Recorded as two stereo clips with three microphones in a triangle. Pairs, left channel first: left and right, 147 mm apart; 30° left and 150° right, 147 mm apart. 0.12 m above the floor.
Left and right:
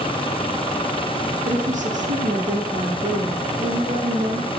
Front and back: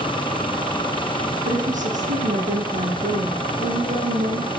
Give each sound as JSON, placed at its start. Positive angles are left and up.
{"t": 1.4, "sound": "a woman speaking", "azimuth_deg": -120, "distance_m": 4.5}